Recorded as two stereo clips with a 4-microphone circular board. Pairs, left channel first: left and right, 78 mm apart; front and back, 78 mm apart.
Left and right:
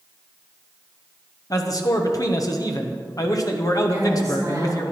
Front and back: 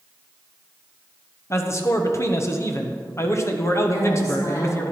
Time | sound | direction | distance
1.5 | a man speaking | 50° left | 1.0 m
3.9 | a woman speaking | 35° right | 3.5 m